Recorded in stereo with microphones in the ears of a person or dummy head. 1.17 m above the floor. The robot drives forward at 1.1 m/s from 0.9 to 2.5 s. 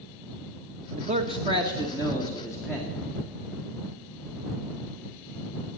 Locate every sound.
1.0 s a man speaking: 40° right (ahead or behind), 0.7 m; by 3.0 s 10° right (ahead or behind), 2 m